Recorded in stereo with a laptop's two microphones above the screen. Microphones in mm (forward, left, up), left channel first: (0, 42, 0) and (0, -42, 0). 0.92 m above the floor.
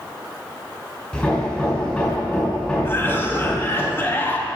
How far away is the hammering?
About 4 m.